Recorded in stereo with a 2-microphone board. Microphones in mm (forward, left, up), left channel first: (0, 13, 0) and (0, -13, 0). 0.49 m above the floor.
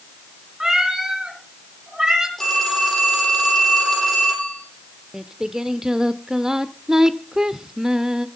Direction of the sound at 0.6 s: 25° right (ahead or behind).